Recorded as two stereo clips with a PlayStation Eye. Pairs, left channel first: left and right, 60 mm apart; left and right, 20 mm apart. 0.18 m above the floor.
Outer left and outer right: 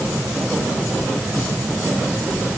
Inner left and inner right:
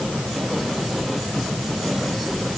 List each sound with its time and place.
Only background noise.